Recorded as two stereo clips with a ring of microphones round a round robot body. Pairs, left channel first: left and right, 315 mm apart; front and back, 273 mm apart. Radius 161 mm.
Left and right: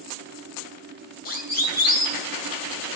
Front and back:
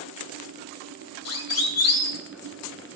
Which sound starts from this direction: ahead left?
A siren, at 1.2 s.